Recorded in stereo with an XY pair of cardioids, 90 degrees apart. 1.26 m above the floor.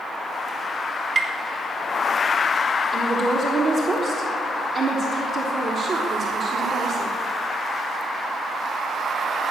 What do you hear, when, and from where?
1.1 s tapping: 40° right, 3 m
2.9 s a woman speaking: 50° right, 3.5 m